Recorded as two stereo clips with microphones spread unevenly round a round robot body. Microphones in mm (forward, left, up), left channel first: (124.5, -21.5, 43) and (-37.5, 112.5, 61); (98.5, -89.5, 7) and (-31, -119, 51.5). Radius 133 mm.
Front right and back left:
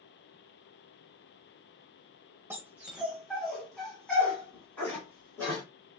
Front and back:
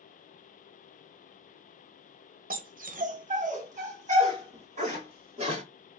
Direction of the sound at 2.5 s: 140° right.